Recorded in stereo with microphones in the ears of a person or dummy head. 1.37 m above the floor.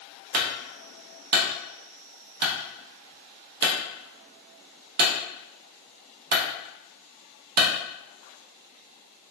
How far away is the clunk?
About 0.6 m.